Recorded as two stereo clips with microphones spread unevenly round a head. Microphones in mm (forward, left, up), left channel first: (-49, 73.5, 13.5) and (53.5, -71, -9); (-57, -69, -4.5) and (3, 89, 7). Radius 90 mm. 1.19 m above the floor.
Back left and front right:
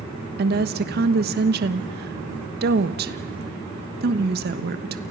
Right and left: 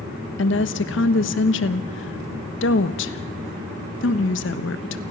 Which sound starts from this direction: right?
A woman speaking, at 0.4 s.